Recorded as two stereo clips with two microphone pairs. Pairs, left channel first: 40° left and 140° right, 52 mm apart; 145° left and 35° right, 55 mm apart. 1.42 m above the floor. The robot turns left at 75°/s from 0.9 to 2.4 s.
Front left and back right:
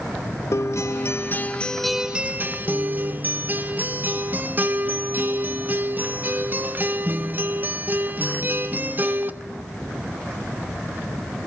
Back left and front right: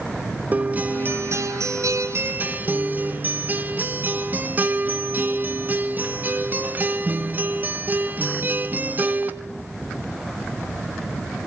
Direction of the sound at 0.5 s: 25° left.